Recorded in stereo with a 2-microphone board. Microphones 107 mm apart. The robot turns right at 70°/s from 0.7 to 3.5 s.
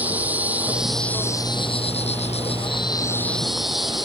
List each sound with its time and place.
0.0 s an insect: 15° right; by 4.1 s straight behind